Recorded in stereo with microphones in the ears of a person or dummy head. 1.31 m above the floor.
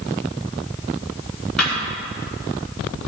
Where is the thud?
5° left (ahead or behind), 5.5 m.